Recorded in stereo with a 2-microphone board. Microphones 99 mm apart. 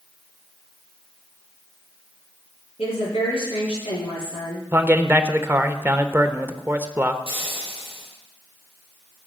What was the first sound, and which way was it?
A woman speaking, 80° left.